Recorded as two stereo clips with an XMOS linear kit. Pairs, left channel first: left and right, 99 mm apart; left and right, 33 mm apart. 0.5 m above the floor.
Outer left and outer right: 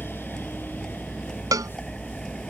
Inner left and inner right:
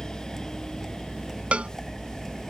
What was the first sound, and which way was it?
A vehicle, 5° left (ahead or behind).